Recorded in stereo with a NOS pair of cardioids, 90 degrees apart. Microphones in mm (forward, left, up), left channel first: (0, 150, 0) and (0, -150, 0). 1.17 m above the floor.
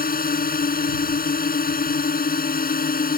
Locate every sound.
0.0 s a drone: 30° left